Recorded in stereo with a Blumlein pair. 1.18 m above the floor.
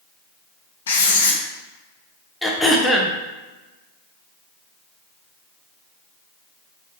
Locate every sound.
0.9 s writing: 65° left, 0.7 m
2.4 s throat clearing: 5° left, 0.5 m